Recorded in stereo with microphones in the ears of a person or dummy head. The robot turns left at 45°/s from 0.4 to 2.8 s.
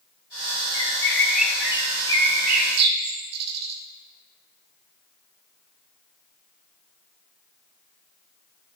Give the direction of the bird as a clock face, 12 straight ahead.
11 o'clock.